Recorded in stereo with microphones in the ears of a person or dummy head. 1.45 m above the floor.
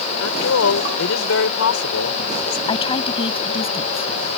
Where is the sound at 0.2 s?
90° left.